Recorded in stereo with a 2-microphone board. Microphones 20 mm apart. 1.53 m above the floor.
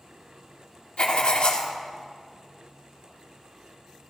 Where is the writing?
55° left (ahead or behind), 1.9 m.